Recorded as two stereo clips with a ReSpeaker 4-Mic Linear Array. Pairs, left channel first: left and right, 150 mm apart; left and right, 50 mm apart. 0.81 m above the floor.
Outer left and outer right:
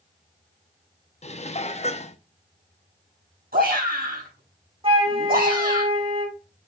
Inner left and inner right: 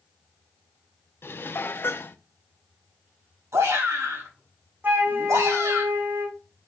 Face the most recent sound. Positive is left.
turn(degrees=-35)  # may be behind; listen again after turning